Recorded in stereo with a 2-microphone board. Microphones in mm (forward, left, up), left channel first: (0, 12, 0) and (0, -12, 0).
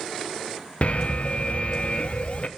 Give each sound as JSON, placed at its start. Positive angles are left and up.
{"t": 0.8, "sound": "an alarm", "side_deg": 55, "distance_m": 0.5}